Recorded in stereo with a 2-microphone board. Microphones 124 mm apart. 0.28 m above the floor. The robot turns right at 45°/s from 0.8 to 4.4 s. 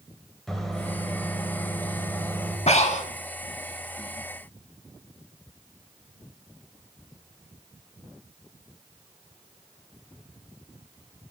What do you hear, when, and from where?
0.5 s a microwave: 5° left (ahead or behind), 0.8 m; by 2.6 s 20° left (ahead or behind), 0.8 m
2.7 s breathing: 60° left (ahead or behind), 0.5 m; by 3.1 s 75° left (ahead or behind), 0.5 m